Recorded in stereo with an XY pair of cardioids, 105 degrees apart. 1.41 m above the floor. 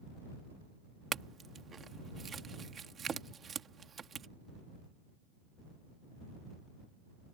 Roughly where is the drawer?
No drawer in this recording.